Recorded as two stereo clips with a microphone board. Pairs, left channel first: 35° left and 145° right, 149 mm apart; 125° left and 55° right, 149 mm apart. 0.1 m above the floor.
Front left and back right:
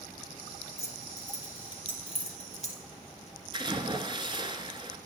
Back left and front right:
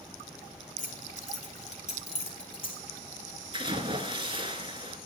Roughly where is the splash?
Right.